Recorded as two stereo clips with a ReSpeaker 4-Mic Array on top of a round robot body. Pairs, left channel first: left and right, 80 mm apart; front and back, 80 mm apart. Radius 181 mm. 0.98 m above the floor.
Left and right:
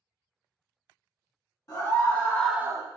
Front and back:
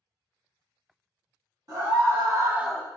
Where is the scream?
140° left, 1.3 m; by 2.9 s 65° right, 0.6 m.